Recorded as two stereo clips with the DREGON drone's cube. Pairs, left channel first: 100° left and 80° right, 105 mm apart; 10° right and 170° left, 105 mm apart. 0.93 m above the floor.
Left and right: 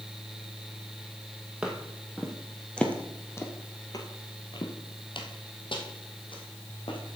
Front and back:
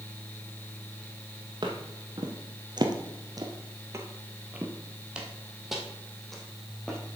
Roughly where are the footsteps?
Behind.